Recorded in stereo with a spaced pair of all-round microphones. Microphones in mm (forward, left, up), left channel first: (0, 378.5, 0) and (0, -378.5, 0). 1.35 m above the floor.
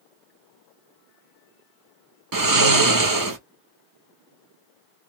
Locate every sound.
2.3 s snoring: 30° right (ahead or behind), 0.7 m